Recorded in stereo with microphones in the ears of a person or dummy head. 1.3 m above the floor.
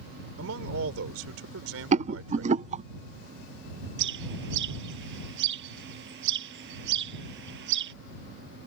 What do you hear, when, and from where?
0.4 s a man speaking: 80° right
1.9 s a rattle: 35° right (ahead or behind)
4.0 s a bird: 65° right (ahead or behind)